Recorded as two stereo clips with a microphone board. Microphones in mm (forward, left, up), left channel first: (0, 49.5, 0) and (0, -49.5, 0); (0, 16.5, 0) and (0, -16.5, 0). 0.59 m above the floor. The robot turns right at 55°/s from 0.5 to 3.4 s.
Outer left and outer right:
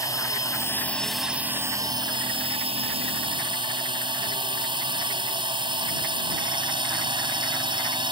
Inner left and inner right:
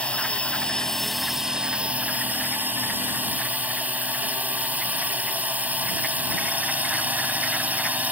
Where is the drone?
145° left; by 8.1 s 55° right.